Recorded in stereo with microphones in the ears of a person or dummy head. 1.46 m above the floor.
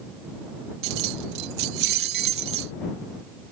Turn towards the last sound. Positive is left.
turn(degrees=-60)  # may be behind; listen again after turning